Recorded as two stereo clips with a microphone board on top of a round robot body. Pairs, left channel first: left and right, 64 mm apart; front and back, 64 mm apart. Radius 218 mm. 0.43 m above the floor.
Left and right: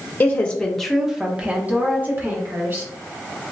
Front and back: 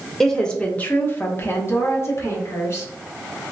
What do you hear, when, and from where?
0.2 s a woman speaking: 80° left, 0.8 m; by 2.9 s 45° right, 1.4 m